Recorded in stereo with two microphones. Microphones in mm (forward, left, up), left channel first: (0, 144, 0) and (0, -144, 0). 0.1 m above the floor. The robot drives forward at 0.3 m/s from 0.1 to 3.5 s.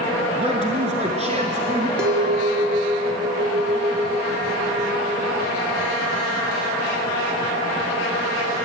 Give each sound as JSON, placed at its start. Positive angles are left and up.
{"t": 0.4, "sound": "a man speaking", "side_deg": -25, "distance_m": 1.2}
{"t": 2.0, "sound": "a clink", "side_deg": -35, "distance_m": 0.9}